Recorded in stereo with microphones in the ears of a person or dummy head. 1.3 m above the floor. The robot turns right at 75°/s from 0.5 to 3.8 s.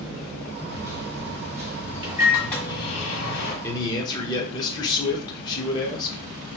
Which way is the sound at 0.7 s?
130° right.